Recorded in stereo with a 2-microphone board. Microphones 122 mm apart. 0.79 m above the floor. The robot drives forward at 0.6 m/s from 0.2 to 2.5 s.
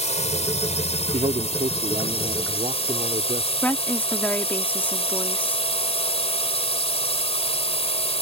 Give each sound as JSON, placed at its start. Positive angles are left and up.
{"t": 0.0, "sound": "a drone", "side_deg": 65}
{"t": 1.1, "sound": "a man speaking", "side_deg": -70}
{"t": 3.6, "sound": "a woman speaking", "side_deg": 15}